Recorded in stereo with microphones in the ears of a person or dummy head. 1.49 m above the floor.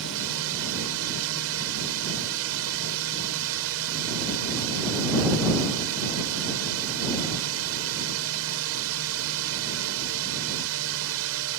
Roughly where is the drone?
Right.